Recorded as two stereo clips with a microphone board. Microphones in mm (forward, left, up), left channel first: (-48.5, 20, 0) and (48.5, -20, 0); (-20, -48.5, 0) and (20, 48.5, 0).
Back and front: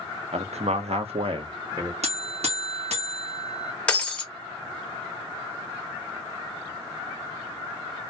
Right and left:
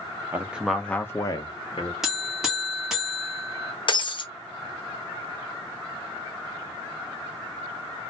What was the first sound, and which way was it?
A man speaking, 5° right.